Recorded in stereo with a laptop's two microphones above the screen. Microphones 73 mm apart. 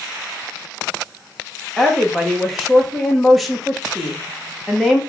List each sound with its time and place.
1.8 s a woman speaking: centre (ahead or behind), 0.8 m